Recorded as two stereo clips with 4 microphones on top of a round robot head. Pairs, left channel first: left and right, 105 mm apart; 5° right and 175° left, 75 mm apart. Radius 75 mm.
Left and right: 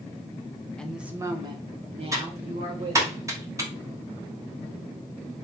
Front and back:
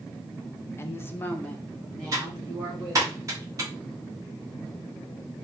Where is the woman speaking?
15° left, 0.6 m; by 3.1 s 95° right, 1.8 m.